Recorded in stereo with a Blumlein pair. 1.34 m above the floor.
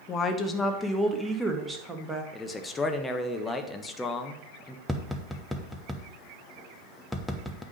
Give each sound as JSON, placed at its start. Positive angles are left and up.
{"t": 0.1, "sound": "a woman speaking", "azimuth_deg": 25, "distance_m": 1.2}
{"t": 2.3, "sound": "a man speaking", "azimuth_deg": 10, "distance_m": 1.2}
{"t": 4.9, "sound": "tapping", "azimuth_deg": 0, "distance_m": 1.0}